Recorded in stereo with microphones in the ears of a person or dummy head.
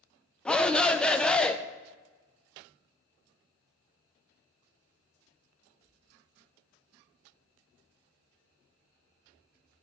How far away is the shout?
About 0.7 m.